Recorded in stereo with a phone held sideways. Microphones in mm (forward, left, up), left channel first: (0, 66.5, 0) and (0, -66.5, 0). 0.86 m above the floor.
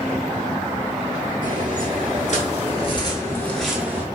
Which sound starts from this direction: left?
Footsteps, at 1.4 s.